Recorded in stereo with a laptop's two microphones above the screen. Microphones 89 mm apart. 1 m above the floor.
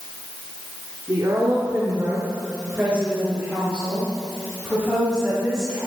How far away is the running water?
I don't hear running water.